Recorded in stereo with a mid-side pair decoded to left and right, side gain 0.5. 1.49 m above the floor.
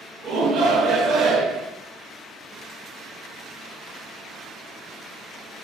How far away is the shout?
About 3 m.